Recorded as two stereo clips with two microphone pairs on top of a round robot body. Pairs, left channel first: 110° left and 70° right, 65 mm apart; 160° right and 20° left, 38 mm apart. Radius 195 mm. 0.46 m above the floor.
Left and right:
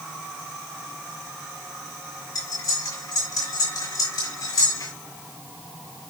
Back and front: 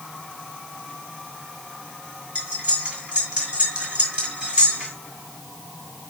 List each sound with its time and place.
2.4 s cutlery clinking: 80° left, 5.5 m